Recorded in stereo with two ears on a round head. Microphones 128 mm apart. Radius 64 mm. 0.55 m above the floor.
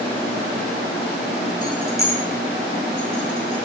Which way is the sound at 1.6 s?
30° left (ahead or behind).